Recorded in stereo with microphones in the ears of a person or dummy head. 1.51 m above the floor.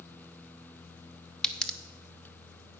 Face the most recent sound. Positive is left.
turn(degrees=10)  # may be behind; listen again after turning